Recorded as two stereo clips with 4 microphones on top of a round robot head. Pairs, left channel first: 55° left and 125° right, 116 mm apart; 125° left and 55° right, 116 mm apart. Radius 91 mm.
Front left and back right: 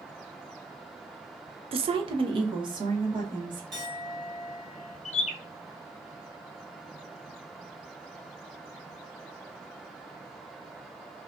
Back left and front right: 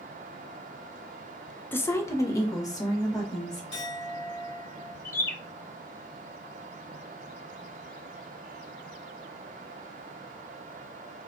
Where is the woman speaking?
165° right, 0.5 m; by 3.6 s 175° right, 2 m.